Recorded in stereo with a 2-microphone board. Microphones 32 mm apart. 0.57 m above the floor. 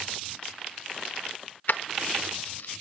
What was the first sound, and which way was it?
Keys jangling, 60° left (ahead or behind).